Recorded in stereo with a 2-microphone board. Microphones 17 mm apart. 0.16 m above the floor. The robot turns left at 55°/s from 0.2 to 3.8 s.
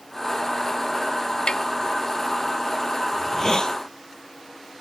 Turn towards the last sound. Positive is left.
turn(degrees=115)